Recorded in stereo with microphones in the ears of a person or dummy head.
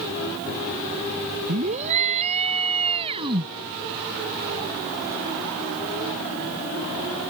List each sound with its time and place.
1.5 s a scream: 45° right (ahead or behind); by 3.5 s 30° right (ahead or behind)